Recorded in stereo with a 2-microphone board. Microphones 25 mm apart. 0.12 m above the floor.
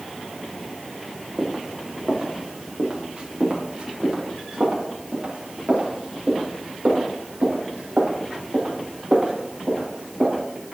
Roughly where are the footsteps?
Right.